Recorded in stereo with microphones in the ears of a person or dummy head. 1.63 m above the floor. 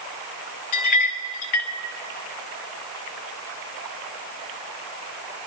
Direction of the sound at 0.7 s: 35° left (ahead or behind).